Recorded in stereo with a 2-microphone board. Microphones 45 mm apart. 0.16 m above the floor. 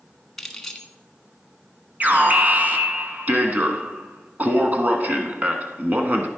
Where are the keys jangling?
10° left (ahead or behind), 1.2 m.